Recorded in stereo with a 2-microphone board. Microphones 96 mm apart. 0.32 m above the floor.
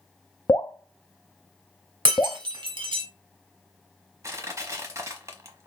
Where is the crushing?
30° right (ahead or behind), 1.0 m.